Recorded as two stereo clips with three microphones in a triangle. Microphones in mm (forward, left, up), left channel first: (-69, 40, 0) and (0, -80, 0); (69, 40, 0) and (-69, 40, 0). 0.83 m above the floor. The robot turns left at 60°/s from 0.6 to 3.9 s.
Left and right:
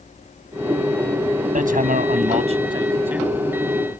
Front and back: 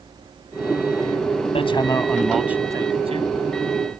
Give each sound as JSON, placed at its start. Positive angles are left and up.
{"t": 1.6, "sound": "hammering", "azimuth_deg": -45}